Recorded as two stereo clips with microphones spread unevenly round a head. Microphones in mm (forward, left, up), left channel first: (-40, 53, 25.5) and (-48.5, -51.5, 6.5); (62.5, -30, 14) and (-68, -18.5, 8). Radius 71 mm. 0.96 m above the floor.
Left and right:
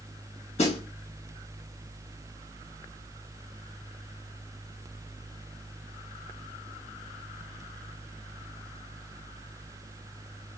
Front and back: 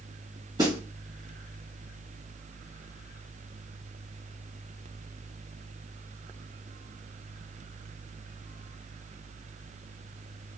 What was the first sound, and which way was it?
A snare drum, 110° left.